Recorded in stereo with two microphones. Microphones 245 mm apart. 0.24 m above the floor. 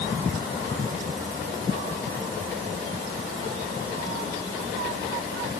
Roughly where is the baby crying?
No baby crying in this recording.